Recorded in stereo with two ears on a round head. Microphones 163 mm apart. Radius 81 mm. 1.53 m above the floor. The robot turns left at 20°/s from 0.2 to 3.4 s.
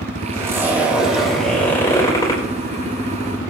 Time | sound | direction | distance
0.3 | a zipper | 160° right | 4.5 m